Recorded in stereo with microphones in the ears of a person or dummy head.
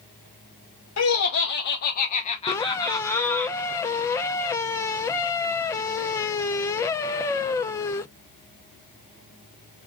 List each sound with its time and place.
1.0 s laughter: 75° left (ahead or behind), 0.9 m; by 3.5 s 10° left (ahead or behind), 1.3 m
2.5 s a squeak: 15° left (ahead or behind), 0.6 m